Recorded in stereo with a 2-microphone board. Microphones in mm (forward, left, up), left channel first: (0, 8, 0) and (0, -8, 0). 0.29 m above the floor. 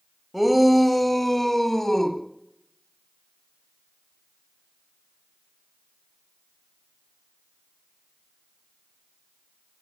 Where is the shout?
10° right (ahead or behind), 1.3 m; by 2.2 s 20° left (ahead or behind), 1.7 m.